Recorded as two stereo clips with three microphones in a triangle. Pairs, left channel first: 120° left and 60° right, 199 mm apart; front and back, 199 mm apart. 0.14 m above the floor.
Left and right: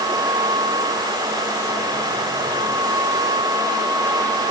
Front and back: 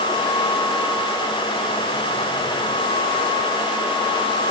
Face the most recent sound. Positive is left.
No sound to turn to.